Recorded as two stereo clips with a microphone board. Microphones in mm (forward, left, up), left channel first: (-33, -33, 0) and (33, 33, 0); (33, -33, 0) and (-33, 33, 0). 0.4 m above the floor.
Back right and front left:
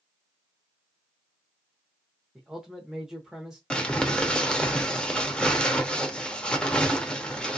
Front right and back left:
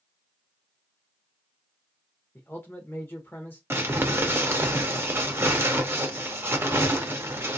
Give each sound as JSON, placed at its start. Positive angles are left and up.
{"t": 2.4, "sound": "a man speaking", "azimuth_deg": -30, "distance_m": 0.9}
{"t": 3.7, "sound": "crumpling", "azimuth_deg": 160, "distance_m": 0.6}